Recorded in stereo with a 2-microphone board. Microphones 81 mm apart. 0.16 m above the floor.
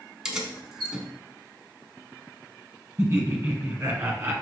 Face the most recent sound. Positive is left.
turn(degrees=-25)  # may be behind; listen again after turning